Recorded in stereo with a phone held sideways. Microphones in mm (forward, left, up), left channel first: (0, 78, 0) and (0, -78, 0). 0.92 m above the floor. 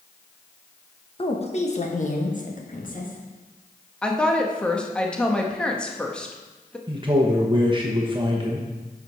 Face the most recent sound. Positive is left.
turn(degrees=-30)  # may be behind; listen again after turning